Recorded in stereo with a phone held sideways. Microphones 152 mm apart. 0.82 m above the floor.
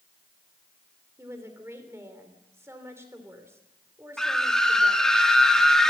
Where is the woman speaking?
15° right (ahead or behind), 3 m.